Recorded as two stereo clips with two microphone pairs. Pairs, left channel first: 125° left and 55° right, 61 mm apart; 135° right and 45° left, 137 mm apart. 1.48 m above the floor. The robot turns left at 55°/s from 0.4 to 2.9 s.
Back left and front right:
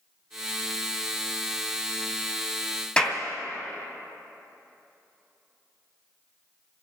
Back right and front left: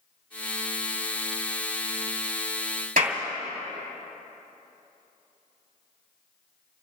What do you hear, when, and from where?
3.0 s a clap: 50° left, 2.5 m